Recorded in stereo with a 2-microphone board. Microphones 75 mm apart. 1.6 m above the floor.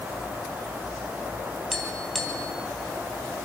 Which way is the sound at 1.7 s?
5° left (ahead or behind).